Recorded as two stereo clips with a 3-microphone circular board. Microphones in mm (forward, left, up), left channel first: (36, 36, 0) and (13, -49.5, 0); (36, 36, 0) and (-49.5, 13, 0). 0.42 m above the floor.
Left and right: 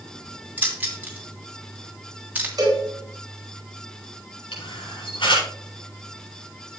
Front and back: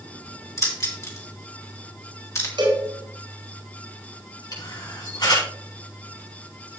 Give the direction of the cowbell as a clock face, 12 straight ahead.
5 o'clock.